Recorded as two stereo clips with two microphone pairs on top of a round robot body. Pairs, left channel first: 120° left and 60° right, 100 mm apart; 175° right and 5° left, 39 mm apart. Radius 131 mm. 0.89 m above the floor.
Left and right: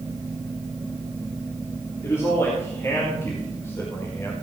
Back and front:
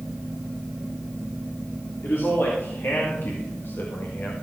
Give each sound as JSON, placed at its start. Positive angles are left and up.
{"t": 2.0, "sound": "a man speaking", "azimuth_deg": -175, "distance_m": 3.0}